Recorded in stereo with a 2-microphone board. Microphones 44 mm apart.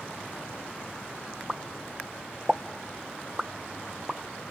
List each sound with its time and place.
1.5 s a pop: 10° right (ahead or behind), 0.8 m